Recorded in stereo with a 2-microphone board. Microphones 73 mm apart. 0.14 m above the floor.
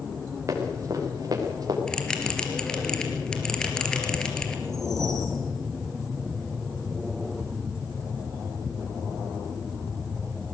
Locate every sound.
0.5 s running footsteps: 40° right (ahead or behind), 6.5 m; by 1.8 s 50° right (ahead or behind), 5.5 m
1.9 s a bell: 10° left (ahead or behind), 3 m
4.7 s a whoosh: 5° left (ahead or behind), 7 m